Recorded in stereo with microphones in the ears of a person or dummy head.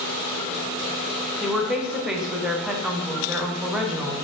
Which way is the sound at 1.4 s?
5° right (ahead or behind).